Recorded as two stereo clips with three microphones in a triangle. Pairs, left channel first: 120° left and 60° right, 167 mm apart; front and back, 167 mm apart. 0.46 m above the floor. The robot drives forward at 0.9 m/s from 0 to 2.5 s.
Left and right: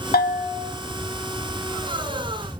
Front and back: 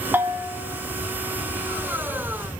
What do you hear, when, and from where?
0.1 s a bell: 105° left, 0.9 m; by 0.7 s 130° left, 1.2 m